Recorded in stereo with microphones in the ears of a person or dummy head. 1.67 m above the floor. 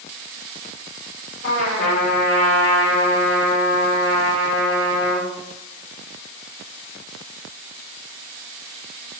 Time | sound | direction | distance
1.4 | a trumpet | 50° left (ahead or behind) | 6 m